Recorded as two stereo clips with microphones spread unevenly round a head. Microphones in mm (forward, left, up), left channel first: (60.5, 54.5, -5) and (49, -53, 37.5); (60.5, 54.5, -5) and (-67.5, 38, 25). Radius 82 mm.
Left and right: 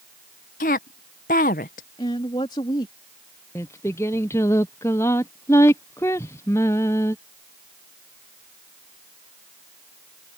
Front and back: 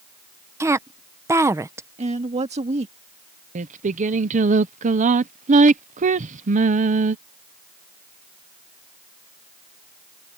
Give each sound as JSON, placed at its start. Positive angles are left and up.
{"t": 0.6, "sound": "a woman speaking", "azimuth_deg": 125}
{"t": 2.0, "sound": "a woman speaking", "azimuth_deg": 155}
{"t": 3.5, "sound": "singing", "azimuth_deg": 160}